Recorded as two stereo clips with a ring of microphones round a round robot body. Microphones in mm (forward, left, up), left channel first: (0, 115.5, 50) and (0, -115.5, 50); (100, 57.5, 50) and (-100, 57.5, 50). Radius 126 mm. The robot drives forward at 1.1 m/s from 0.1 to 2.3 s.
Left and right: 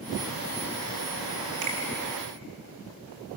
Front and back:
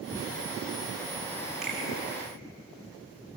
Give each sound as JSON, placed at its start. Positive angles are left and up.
{"t": 1.6, "sound": "a finger snap", "azimuth_deg": -90, "distance_m": 4.5}